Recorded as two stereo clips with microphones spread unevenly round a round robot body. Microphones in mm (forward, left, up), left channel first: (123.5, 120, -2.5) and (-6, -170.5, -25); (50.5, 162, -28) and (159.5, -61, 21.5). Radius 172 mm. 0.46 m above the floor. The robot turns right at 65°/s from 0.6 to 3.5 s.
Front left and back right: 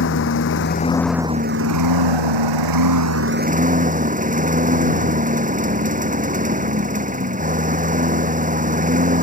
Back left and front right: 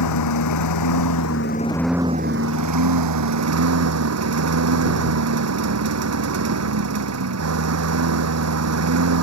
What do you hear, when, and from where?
0.0 s a lawn mower: 125° left; by 9.2 s 50° right